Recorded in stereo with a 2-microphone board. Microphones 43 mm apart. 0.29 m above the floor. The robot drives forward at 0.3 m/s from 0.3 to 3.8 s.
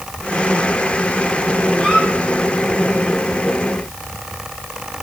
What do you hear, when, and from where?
1.8 s a squeak: 20° left (ahead or behind), 5.5 m